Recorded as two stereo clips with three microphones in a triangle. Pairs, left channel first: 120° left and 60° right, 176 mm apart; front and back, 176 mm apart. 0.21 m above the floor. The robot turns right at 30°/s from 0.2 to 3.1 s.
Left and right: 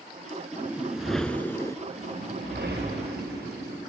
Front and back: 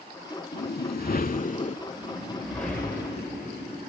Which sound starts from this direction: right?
A whoosh, at 1.9 s.